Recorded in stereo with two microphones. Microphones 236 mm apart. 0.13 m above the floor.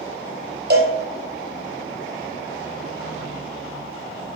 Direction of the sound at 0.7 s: 45° right (ahead or behind).